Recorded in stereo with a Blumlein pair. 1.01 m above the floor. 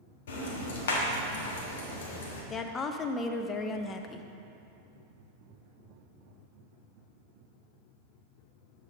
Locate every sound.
0.3 s ticking: 60° left, 1.2 m
2.5 s a woman speaking: 20° left, 0.5 m